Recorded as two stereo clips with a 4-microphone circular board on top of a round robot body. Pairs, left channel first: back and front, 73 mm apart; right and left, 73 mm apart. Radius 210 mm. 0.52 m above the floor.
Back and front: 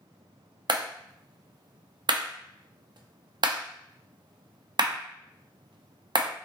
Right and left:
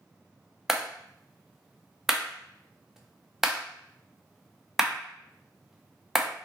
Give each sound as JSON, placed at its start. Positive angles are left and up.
{"t": 0.7, "sound": "a clap", "azimuth_deg": 5, "distance_m": 0.9}